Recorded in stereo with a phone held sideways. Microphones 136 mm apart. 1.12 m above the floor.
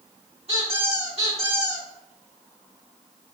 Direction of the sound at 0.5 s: 45° right (ahead or behind).